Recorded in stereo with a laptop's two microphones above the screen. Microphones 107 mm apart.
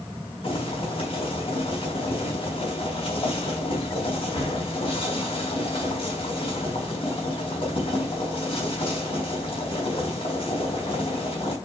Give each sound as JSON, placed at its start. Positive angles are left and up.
{"t": 0.4, "sound": "boiling", "side_deg": 55, "distance_m": 4.5}